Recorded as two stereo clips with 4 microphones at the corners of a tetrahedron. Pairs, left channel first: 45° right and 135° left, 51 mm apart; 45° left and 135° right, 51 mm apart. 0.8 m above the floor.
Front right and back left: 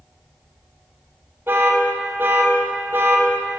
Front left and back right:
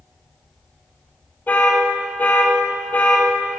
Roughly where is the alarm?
Left.